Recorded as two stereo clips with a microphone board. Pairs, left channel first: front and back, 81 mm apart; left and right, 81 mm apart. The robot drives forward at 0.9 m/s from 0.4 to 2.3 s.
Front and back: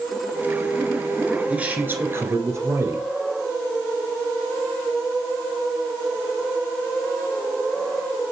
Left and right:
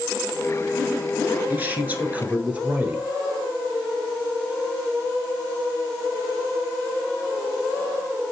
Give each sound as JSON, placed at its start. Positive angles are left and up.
{"t": 1.5, "sound": "a man speaking", "azimuth_deg": -125, "distance_m": 1.6}